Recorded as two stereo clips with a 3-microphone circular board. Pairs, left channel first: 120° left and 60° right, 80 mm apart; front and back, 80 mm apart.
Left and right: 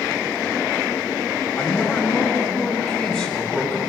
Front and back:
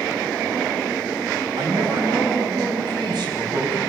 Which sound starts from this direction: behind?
A man speaking, at 1.6 s.